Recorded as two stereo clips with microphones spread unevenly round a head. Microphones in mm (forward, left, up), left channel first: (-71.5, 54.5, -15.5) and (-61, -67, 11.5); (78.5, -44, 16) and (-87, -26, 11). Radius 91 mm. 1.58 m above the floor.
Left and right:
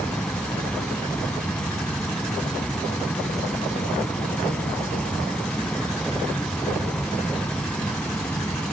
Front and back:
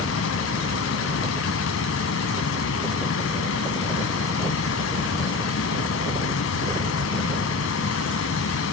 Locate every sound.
0.0 s a fan: 10° left